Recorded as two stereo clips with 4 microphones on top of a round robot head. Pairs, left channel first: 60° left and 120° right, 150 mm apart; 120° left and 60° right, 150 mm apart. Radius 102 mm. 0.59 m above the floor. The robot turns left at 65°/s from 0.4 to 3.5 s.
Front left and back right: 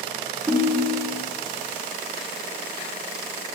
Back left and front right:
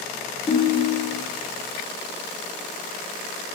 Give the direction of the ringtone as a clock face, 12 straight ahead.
6 o'clock.